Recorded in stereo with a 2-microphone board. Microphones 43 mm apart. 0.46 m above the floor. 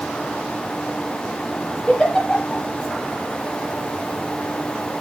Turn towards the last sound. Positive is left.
turn(degrees=20)  # may be behind; listen again after turning